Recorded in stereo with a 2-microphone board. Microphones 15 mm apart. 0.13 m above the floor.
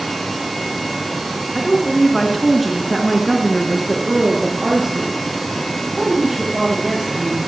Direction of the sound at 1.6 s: 35° left (ahead or behind).